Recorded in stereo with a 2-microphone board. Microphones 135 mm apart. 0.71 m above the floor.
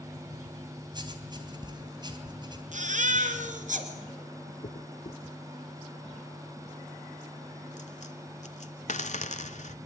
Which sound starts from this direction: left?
A dropped coin, at 4.6 s.